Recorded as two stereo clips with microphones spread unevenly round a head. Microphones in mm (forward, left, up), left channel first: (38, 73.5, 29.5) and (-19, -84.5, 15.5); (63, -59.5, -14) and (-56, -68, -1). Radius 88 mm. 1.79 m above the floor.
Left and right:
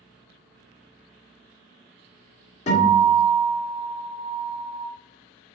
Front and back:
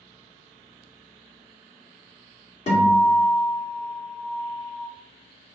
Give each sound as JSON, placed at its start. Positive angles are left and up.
{"t": 2.7, "sound": "a guitar", "azimuth_deg": 35, "distance_m": 1.7}